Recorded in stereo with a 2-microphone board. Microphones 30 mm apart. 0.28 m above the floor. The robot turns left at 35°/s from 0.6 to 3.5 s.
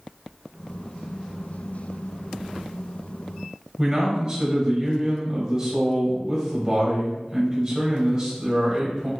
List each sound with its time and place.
3.8 s a man speaking: 25° right (ahead or behind), 1.1 m